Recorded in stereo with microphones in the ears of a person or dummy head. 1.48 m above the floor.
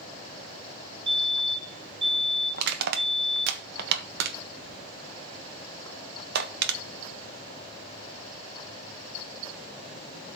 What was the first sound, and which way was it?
A fire alarm, 30° right (ahead or behind).